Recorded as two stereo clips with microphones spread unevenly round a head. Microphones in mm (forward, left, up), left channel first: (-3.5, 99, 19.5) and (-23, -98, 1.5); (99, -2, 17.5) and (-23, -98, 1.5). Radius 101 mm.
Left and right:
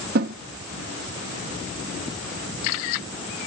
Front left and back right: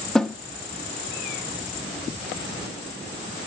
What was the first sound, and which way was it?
A snare drum, 50° right.